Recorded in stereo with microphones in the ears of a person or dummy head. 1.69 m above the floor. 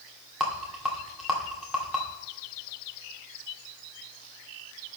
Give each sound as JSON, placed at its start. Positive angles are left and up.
{"t": 0.4, "sound": "a rattle", "side_deg": -5, "distance_m": 2.0}